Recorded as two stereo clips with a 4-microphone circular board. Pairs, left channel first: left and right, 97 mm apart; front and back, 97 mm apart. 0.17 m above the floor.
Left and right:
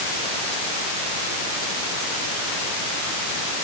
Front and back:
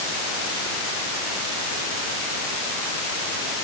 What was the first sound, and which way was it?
Only background noise.